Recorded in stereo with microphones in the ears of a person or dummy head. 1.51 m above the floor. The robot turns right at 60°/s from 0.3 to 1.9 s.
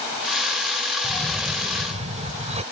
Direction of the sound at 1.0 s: 160° left.